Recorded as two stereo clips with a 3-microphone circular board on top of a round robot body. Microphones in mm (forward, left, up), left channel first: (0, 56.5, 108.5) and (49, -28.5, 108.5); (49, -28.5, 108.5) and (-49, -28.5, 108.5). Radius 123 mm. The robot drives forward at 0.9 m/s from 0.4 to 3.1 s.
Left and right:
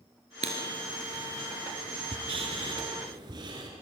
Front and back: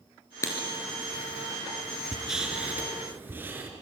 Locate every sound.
0.4 s writing: 60° right, 3 m; by 3.7 s 110° right, 3 m